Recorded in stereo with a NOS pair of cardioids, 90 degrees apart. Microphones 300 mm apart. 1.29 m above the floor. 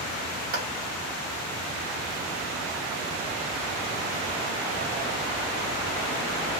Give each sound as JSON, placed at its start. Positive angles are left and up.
{"t": 0.5, "sound": "a clap", "azimuth_deg": -50, "distance_m": 2.0}